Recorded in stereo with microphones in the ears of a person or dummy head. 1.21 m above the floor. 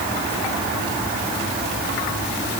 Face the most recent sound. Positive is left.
No sound to turn to.